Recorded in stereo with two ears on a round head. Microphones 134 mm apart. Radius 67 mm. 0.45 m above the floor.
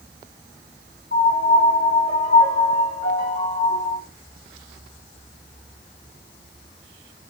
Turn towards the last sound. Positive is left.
turn(degrees=65)  # may be behind; listen again after turning